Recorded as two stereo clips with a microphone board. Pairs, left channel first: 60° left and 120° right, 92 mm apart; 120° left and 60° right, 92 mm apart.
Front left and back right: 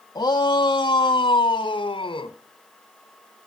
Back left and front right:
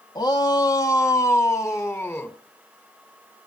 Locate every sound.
0.1 s a shout: 90° left, 1.7 m; by 2.4 s 55° left, 2.5 m